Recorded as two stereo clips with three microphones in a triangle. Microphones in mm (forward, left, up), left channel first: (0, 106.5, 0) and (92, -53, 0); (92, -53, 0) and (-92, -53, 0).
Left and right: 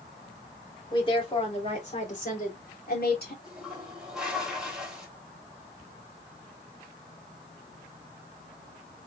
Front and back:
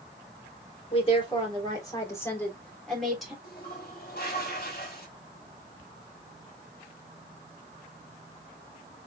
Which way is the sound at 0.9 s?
55° left.